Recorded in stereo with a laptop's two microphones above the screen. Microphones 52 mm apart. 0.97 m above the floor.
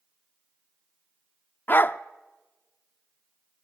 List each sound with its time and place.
1.7 s a dog barking: 40° left (ahead or behind), 0.6 m